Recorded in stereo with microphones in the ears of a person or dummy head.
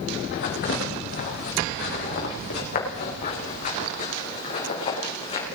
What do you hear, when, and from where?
0.3 s footsteps: 60° left (ahead or behind), 5 m; by 5.5 s 35° left (ahead or behind), 5 m